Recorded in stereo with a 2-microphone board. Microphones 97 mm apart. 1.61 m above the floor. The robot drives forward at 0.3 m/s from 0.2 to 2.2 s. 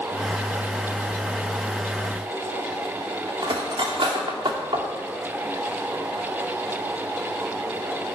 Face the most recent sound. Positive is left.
turn(degrees=-55)  # may be behind; listen again after turning